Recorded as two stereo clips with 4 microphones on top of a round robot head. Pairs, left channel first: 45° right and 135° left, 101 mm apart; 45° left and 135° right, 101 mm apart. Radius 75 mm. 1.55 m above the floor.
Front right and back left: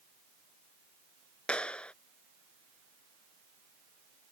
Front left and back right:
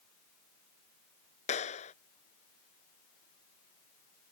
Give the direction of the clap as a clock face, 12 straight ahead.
11 o'clock.